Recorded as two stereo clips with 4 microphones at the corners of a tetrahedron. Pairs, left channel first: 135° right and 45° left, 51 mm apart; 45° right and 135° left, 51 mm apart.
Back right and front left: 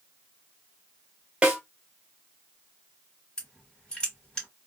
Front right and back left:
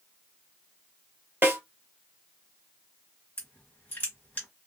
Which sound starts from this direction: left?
A snare drum, at 1.4 s.